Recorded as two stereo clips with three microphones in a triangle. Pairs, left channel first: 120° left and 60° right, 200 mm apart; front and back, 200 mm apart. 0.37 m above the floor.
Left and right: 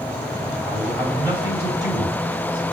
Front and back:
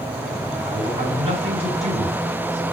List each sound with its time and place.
0.7 s a man speaking: 125° right, 3.5 m